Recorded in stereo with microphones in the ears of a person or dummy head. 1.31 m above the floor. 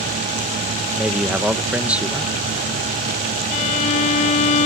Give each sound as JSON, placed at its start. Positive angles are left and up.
{"t": 1.0, "sound": "a man speaking", "side_deg": -10}
{"t": 3.5, "sound": "a violin", "side_deg": 40}